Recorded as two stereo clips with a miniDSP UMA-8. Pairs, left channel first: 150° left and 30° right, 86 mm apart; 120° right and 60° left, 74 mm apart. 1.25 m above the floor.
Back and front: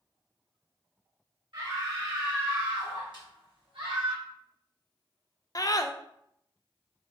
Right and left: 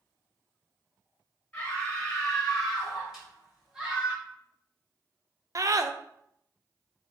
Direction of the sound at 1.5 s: 50° right.